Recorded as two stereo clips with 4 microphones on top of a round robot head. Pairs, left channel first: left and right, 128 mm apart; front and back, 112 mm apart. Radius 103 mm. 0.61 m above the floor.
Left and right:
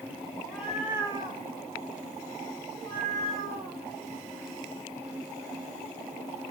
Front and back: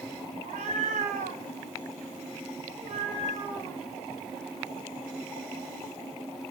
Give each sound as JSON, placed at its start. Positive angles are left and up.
{"t": 0.4, "sound": "a cat meowing", "azimuth_deg": 170, "distance_m": 1.5}